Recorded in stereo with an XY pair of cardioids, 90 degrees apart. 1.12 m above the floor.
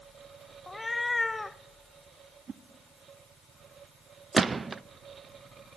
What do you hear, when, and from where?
0.7 s a cat meowing: 25° left, 0.8 m
2.5 s a whoosh: 50° right, 1.4 m
4.3 s a gunshot: 30° right, 0.7 m